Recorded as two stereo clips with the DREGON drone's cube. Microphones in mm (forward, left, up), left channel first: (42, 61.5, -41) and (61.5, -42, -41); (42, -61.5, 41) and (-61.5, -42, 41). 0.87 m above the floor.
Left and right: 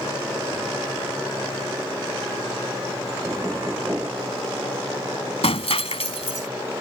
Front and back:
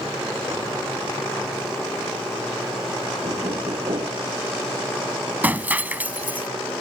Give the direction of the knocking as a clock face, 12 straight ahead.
5 o'clock.